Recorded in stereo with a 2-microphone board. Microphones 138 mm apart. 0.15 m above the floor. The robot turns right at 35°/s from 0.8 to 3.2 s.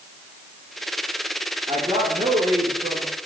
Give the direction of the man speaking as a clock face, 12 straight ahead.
4 o'clock.